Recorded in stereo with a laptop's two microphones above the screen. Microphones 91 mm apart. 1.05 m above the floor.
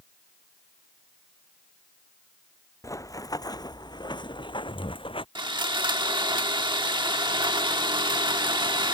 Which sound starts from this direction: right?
Sawing, at 5.3 s.